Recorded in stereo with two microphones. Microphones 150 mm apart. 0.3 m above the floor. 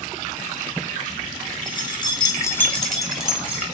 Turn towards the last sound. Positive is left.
turn(degrees=-10)  # may be behind; listen again after turning